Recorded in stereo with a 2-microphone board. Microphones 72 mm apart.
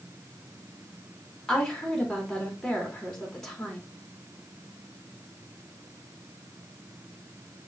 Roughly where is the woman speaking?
Centre.